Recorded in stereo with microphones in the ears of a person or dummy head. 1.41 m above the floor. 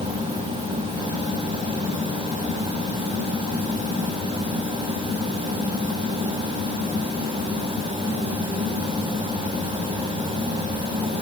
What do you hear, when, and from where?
Only background noise.